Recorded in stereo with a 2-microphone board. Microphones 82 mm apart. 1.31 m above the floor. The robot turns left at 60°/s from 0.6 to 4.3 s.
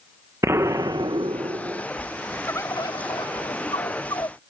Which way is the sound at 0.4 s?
35° right.